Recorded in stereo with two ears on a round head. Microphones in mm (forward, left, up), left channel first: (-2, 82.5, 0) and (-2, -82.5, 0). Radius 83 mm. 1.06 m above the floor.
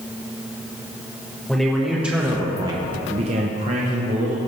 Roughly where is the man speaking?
Centre.